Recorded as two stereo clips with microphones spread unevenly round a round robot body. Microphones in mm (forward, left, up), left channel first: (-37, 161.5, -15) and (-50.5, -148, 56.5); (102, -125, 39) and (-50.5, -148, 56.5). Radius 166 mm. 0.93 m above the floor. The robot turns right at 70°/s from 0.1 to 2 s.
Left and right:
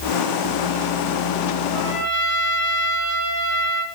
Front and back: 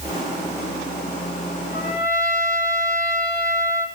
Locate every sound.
1.7 s a trumpet: 40° left, 7.5 m; by 3.9 s 60° left, 7.5 m